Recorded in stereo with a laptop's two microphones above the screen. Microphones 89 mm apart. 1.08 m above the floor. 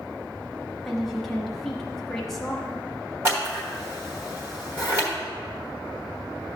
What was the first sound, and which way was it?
A woman speaking, centre (ahead or behind).